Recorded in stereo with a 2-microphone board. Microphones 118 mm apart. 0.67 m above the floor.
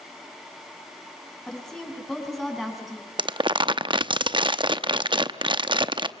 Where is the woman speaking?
5° left (ahead or behind), 6.5 m; by 3.1 s centre (ahead or behind), 7 m.